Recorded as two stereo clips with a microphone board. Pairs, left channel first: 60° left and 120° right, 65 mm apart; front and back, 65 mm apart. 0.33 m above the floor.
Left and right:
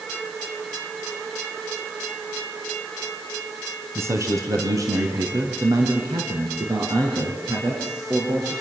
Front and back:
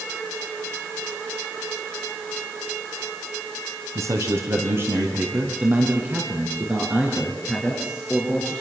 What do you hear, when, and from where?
4.0 s a man speaking: 155° right, 3 m; by 8.5 s 100° right, 8 m